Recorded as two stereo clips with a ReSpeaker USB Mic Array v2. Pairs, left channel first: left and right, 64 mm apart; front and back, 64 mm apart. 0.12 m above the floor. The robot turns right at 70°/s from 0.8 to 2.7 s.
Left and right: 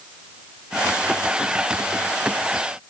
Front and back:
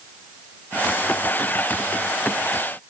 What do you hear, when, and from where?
Only background noise.